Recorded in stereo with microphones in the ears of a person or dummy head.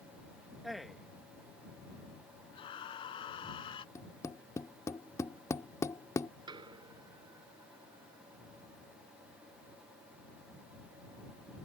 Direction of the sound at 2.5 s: 35° left (ahead or behind).